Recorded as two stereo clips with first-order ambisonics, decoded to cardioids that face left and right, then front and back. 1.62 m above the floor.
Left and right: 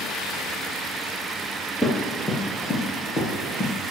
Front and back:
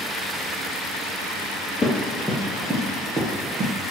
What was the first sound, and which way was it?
Running footsteps, 40° left.